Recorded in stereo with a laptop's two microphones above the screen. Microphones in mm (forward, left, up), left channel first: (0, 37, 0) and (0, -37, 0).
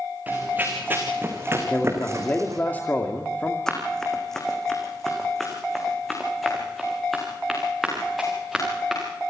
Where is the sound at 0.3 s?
20° right (ahead or behind), 4.5 m; by 2.6 s 45° right (ahead or behind), 2.5 m.